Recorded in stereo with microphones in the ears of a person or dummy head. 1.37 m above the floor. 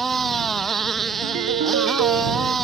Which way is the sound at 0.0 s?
5° right (ahead or behind).